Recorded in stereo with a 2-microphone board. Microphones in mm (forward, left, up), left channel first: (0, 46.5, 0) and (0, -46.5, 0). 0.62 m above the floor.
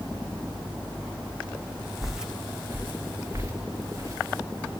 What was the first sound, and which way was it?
Footsteps, centre (ahead or behind).